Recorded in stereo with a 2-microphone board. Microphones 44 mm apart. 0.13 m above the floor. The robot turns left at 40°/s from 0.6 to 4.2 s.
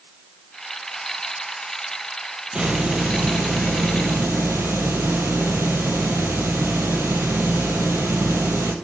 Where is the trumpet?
I don't hear a trumpet.